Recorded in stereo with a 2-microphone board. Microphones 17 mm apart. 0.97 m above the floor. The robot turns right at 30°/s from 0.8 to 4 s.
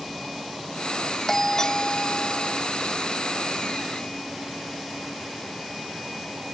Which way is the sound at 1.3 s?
25° left.